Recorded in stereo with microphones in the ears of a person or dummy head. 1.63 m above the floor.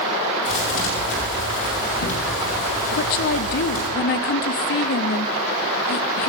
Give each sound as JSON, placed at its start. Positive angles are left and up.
{"t": 0.5, "sound": "a thud", "side_deg": 80, "distance_m": 7.0}
{"t": 2.9, "sound": "a woman speaking", "side_deg": 50, "distance_m": 0.5}